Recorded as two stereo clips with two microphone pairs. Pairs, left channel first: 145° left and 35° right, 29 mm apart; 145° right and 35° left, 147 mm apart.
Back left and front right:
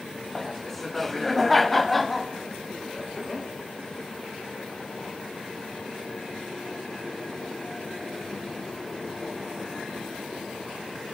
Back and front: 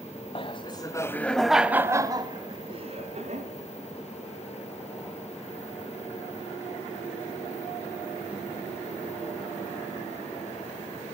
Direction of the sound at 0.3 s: 135° right.